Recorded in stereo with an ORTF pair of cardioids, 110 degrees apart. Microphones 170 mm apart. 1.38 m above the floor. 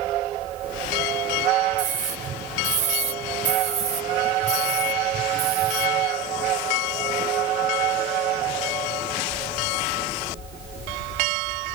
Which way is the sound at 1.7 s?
50° right.